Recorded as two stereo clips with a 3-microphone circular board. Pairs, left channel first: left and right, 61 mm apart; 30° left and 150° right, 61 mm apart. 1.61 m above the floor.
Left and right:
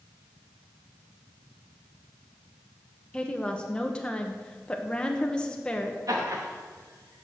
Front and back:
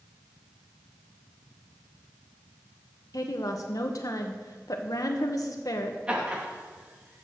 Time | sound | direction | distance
3.1 | a woman speaking | 15° left | 1.2 m
6.1 | laughter | 80° right | 3 m